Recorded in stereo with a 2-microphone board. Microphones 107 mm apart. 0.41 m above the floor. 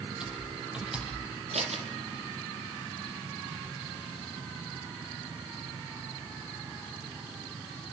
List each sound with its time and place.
0.2 s typing on a keyboard: 5° right (ahead or behind), 7.5 m
1.5 s scissors: 75° right (ahead or behind), 3.5 m